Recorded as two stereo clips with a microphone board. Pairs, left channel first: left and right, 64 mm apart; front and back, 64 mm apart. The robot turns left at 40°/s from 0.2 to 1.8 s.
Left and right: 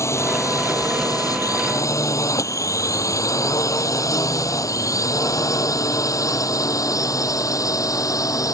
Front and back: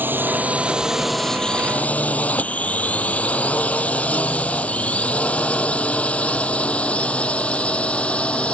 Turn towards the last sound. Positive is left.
turn(degrees=70)